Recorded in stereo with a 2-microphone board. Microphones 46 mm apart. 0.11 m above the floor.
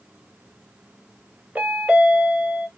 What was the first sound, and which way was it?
A chime, 30° right (ahead or behind).